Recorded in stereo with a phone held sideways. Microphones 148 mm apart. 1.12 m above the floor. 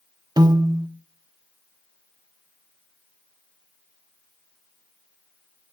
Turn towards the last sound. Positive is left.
turn(degrees=-30)  # may be behind; listen again after turning